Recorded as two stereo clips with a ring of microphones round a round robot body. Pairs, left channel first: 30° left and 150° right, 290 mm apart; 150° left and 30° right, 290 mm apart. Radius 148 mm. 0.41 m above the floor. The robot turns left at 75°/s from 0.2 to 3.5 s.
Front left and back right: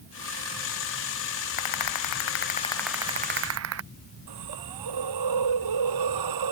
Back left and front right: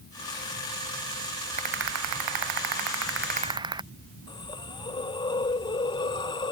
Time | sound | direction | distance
1.6 | a rattle | 40° left | ?
4.3 | a hiss | 135° right | ?